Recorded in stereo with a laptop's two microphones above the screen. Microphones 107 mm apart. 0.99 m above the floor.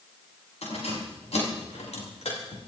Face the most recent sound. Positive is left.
turn(degrees=80)